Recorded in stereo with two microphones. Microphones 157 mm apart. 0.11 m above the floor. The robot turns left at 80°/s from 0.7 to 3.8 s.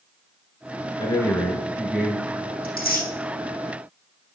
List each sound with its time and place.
1.0 s a man speaking: 25° left (ahead or behind), 1.2 m; by 2.5 s 25° right (ahead or behind), 1.2 m
2.6 s tearing paper: 70° left (ahead or behind), 4 m; by 3.1 s 65° left (ahead or behind), 4 m